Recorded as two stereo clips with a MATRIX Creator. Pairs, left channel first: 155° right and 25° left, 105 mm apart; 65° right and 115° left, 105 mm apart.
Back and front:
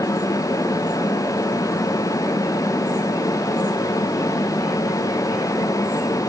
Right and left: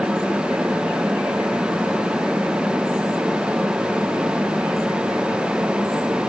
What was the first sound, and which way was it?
Only background noise.